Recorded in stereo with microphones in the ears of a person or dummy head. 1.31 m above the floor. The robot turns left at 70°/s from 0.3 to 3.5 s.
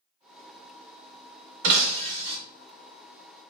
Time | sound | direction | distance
1.6 | breaking glass | 95° right | 0.6 m